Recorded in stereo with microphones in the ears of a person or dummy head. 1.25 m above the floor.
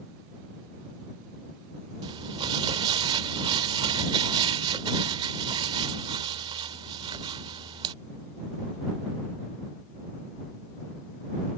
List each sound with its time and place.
2.0 s crumpling: 30° right (ahead or behind)